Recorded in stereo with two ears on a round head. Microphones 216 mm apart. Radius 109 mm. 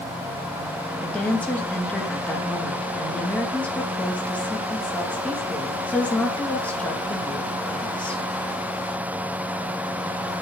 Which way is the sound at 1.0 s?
5° left (ahead or behind).